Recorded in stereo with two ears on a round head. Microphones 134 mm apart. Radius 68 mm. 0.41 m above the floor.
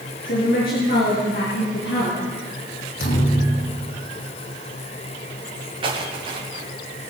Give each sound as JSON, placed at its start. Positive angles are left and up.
{"t": 0.2, "sound": "a woman speaking", "side_deg": 70, "distance_m": 5.5}
{"t": 3.0, "sound": "a thud", "side_deg": 65, "distance_m": 5.0}
{"t": 5.8, "sound": "footsteps", "side_deg": -35, "distance_m": 4.0}